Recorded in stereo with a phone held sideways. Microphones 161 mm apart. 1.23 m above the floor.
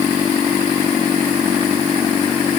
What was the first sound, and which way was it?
Only background noise.